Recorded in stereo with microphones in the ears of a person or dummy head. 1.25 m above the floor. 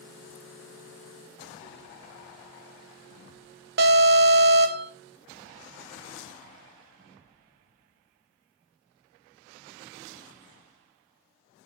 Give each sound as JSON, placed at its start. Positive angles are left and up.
{"t": 3.8, "sound": "an alarm", "side_deg": -50, "distance_m": 1.2}